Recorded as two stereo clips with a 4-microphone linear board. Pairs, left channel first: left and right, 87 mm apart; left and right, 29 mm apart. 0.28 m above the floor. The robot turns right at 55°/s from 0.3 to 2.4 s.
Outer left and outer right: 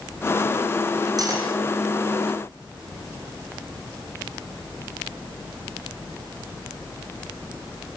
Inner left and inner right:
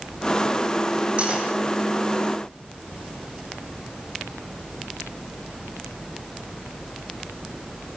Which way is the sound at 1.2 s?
45° right (ahead or behind).